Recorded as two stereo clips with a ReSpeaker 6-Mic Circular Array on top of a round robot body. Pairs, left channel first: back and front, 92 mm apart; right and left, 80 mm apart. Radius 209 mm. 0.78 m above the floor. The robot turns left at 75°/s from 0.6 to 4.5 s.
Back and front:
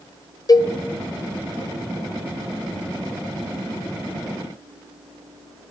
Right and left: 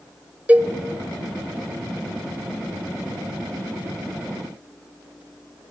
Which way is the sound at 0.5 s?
155° left.